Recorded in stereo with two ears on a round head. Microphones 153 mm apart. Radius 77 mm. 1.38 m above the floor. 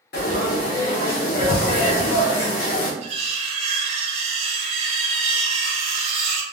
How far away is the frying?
About 0.7 m.